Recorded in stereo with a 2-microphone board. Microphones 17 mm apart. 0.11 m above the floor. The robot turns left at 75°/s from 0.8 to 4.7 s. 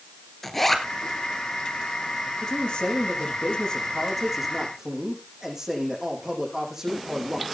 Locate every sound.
0.4 s a zipper: 10° left (ahead or behind), 1.9 m; by 0.9 s 15° left (ahead or behind), 1.9 m
2.4 s a man speaking: 145° left, 6 m; by 7.4 s 25° right, 6 m